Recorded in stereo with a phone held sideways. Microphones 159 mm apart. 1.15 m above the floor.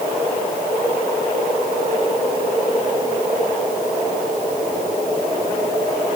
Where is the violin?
No violin in this recording.